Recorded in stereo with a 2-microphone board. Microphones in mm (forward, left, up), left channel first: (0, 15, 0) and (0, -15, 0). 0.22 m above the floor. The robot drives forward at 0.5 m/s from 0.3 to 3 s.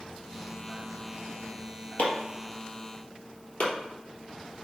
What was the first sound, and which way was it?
Chopping, 75° left (ahead or behind).